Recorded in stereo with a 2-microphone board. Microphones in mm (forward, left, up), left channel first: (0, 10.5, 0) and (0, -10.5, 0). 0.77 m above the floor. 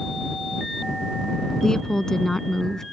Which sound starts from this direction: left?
A woman speaking, at 1.6 s.